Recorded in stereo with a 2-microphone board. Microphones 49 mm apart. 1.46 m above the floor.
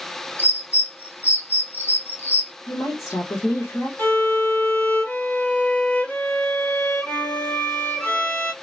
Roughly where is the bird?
Left.